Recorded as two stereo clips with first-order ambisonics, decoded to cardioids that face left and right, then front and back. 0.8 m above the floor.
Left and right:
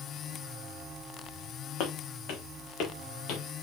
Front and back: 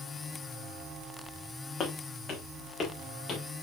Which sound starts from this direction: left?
Footsteps, at 1.8 s.